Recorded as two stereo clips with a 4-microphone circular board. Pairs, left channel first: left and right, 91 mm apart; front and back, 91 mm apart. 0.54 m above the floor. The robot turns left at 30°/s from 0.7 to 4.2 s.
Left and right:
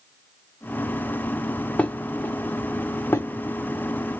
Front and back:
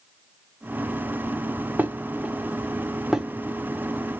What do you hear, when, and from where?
1.8 s dishes clattering: 145° left, 0.6 m; by 3.3 s 100° left, 0.6 m